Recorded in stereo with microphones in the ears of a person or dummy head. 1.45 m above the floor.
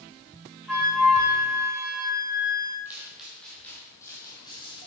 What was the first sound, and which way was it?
A flute, centre (ahead or behind).